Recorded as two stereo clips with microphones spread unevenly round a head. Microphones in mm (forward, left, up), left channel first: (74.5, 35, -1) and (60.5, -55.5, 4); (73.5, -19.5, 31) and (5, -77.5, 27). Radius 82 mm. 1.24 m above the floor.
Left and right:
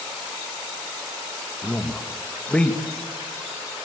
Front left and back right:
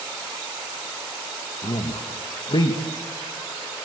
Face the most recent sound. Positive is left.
turn(degrees=5)